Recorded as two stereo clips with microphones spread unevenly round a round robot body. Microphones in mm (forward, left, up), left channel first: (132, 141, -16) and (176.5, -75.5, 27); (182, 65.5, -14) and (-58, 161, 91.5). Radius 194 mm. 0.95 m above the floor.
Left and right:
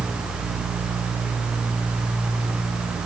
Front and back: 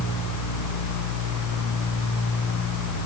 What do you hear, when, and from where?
Only background noise.